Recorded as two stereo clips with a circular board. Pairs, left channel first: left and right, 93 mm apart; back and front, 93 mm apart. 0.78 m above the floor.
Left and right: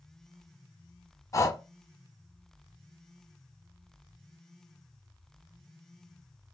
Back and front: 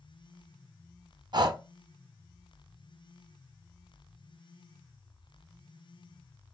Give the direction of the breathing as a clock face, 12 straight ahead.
11 o'clock.